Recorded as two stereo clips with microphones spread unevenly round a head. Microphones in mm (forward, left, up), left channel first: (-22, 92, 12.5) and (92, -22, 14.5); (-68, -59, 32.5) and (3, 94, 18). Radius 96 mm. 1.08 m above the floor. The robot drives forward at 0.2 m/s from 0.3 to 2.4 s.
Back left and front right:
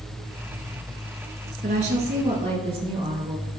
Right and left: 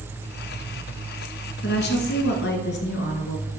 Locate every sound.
1.6 s a woman speaking: 95° right, 1.2 m; by 3.5 s 100° right, 1.2 m